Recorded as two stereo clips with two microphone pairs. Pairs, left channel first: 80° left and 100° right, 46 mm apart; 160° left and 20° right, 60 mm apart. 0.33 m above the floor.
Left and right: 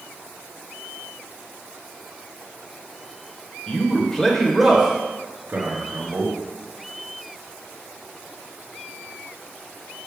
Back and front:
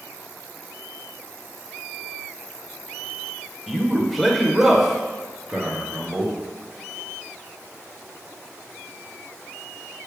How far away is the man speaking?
About 1.0 m.